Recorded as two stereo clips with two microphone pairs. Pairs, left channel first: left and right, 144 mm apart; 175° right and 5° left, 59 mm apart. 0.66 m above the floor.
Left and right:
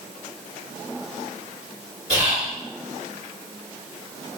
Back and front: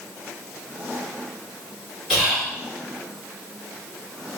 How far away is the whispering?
About 1.7 m.